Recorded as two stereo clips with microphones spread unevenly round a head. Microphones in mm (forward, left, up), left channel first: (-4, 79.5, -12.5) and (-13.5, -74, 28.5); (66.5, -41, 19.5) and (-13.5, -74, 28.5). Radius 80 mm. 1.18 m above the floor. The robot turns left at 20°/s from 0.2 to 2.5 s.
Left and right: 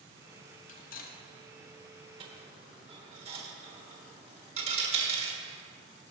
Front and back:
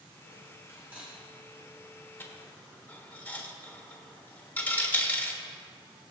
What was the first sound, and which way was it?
Cutlery clinking, 130° left.